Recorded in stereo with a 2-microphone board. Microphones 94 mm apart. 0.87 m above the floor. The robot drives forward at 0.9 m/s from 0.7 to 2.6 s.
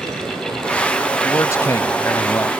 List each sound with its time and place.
1.2 s a man speaking: 35° left (ahead or behind); by 2.5 s 25° left (ahead or behind)